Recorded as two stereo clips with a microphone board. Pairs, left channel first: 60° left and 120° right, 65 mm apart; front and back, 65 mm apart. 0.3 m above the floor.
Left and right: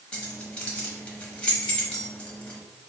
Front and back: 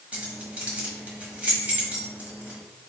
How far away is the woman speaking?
I don't hear a woman speaking.